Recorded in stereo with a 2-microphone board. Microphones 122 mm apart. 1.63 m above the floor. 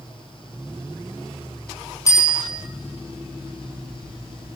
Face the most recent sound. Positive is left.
turn(degrees=25)  # may be behind; listen again after turning